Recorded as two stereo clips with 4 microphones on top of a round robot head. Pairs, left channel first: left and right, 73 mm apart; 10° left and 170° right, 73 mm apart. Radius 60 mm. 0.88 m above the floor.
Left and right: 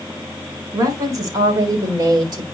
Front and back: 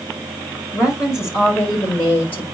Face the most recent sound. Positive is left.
turn(degrees=-65)